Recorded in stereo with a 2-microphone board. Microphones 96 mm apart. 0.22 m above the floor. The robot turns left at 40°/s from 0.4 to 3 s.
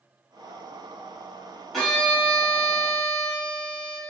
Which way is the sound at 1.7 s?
Centre (ahead or behind).